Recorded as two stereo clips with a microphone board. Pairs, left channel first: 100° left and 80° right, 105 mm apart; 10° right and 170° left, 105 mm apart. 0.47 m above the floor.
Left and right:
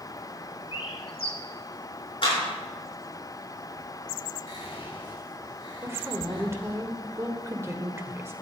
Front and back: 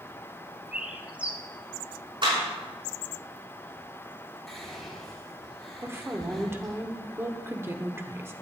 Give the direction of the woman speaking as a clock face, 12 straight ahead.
4 o'clock.